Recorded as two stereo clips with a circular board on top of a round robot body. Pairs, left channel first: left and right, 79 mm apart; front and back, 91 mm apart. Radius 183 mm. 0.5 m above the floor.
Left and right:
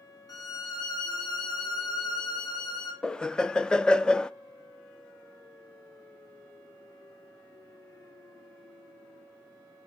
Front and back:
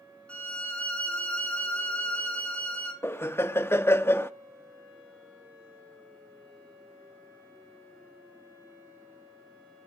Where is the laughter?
20° left, 0.7 m.